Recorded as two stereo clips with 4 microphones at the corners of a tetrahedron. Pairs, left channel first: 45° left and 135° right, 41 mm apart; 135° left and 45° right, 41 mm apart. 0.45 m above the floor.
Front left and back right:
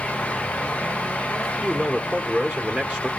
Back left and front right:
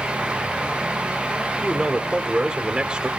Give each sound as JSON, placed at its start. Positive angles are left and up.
{"t": 1.6, "sound": "a man speaking", "azimuth_deg": -90, "distance_m": 1.4}